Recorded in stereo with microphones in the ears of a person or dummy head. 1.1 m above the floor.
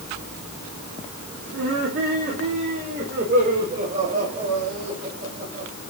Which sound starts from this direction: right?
Laughter, at 1.5 s.